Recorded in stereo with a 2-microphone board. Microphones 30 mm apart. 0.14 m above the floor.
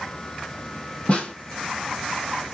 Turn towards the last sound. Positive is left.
turn(degrees=45)  # may be behind; listen again after turning